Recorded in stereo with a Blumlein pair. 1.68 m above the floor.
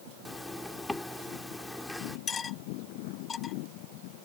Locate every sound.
0.2 s a zipper: 5° left
2.3 s cutlery clinking: 20° left